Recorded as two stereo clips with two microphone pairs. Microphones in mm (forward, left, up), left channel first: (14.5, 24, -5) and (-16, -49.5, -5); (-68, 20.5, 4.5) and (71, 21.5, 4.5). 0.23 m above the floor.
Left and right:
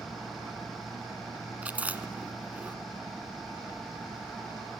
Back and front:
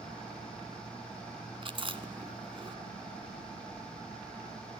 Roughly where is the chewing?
Ahead right.